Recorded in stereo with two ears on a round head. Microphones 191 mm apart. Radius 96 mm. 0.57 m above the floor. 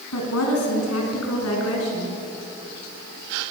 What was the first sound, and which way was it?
A woman speaking, 80° left.